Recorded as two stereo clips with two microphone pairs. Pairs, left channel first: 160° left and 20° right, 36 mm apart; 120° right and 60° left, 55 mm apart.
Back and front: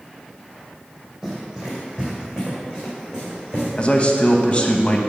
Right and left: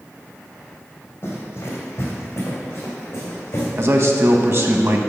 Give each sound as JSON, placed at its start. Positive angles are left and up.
{"t": 1.2, "sound": "running footsteps", "azimuth_deg": -95, "distance_m": 2.5}
{"t": 3.8, "sound": "a man speaking", "azimuth_deg": 100, "distance_m": 1.0}